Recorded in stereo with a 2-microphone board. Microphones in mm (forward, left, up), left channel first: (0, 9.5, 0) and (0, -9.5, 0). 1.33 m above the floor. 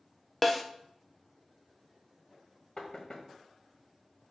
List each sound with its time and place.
0.4 s a snare drum: 5° left (ahead or behind), 0.6 m
2.8 s knocking: 50° left (ahead or behind), 1.3 m